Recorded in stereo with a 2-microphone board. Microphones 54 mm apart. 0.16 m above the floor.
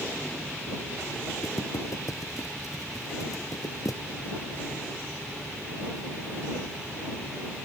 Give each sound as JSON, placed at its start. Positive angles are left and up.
{"t": 1.4, "sound": "footsteps", "side_deg": 80}